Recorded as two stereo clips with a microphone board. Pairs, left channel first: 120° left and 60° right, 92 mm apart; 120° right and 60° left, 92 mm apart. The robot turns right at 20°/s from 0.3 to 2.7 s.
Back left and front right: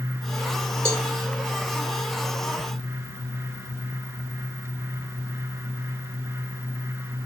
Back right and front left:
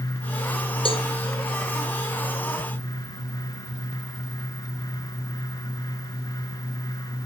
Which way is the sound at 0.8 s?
120° right.